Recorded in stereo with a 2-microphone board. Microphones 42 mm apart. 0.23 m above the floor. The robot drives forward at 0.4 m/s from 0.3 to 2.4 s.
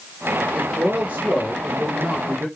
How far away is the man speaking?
About 3.5 m.